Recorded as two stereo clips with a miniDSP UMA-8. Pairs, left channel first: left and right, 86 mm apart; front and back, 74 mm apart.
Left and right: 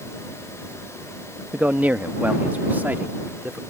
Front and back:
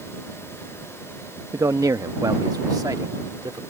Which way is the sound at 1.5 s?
160° right.